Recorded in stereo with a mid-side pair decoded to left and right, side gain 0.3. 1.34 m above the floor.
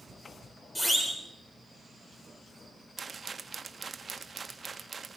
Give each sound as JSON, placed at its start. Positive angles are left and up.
{"t": 0.8, "sound": "a siren", "azimuth_deg": 5, "distance_m": 7.0}
{"t": 3.0, "sound": "a rattle", "azimuth_deg": -45, "distance_m": 1.5}